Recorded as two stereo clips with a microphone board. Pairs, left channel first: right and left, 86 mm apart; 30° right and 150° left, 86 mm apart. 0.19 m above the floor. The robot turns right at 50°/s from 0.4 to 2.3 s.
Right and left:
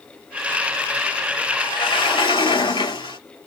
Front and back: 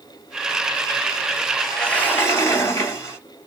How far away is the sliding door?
About 2.5 m.